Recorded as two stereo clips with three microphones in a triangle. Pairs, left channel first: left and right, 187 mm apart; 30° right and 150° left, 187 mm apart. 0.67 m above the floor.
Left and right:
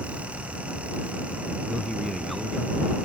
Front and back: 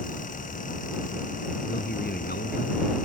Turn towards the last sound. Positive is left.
turn(degrees=0)